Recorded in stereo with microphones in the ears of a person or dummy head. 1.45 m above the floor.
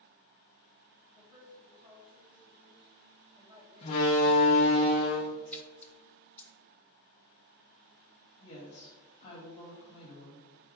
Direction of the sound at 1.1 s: 30° right (ahead or behind).